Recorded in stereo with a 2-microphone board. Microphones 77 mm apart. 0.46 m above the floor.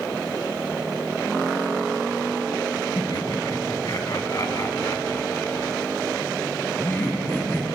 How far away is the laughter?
About 3 m.